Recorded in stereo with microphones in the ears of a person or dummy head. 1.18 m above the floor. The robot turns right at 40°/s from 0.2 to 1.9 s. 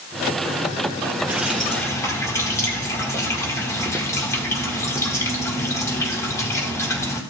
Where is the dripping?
10° right (ahead or behind), 1.6 m; by 7.2 s 15° left (ahead or behind), 1.6 m.